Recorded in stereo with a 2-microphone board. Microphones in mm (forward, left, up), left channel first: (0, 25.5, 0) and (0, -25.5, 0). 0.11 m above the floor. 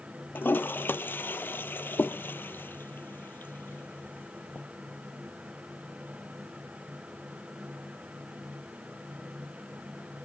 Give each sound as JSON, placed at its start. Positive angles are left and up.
{"t": 0.3, "sound": "a toilet flushing", "side_deg": 45, "distance_m": 0.6}